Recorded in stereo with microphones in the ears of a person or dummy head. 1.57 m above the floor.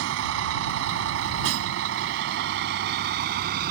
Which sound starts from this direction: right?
A vehicle, at 0.0 s.